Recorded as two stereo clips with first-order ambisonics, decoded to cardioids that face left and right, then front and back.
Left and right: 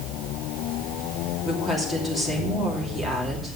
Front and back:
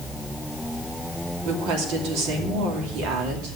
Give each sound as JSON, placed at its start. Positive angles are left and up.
{"t": 1.4, "sound": "a woman speaking", "azimuth_deg": 180, "distance_m": 2.5}